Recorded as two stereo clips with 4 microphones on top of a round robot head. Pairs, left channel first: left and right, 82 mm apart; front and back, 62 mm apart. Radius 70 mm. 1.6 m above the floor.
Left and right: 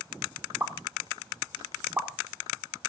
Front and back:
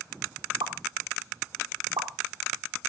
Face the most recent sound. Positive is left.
turn(degrees=-155)